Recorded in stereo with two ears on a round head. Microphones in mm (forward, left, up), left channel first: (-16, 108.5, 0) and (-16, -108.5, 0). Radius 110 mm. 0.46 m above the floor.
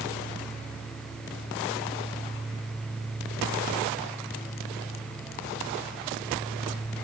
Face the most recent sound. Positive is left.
No sound to turn to.